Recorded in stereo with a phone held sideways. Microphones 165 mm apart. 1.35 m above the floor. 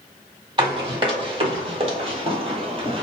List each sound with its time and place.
0.6 s running footsteps: 30° right (ahead or behind), 2.0 m; by 3.0 s 35° right (ahead or behind), 1.6 m